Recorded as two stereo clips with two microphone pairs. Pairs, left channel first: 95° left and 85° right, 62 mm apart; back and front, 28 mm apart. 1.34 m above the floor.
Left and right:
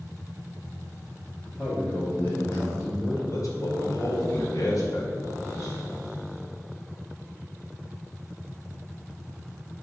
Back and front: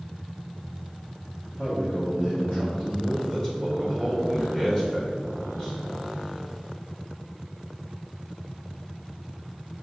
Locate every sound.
1.5 s a man speaking: 135° left, 2.5 m
3.3 s a man speaking: 110° left, 2.5 m